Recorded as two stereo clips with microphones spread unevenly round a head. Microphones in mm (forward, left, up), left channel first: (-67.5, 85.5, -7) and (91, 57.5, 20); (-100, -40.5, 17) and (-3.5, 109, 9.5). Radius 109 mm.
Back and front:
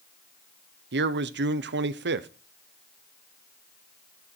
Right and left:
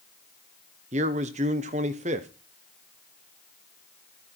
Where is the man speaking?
Straight ahead, 0.9 m.